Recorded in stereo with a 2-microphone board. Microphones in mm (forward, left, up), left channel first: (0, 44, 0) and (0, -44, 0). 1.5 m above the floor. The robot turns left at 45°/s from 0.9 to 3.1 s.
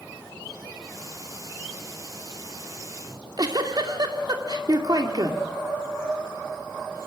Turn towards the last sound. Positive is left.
turn(degrees=-50)  # may be behind; listen again after turning